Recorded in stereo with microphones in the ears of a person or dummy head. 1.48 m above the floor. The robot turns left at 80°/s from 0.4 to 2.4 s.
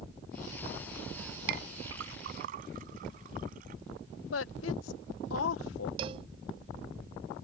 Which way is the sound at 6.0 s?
30° right (ahead or behind).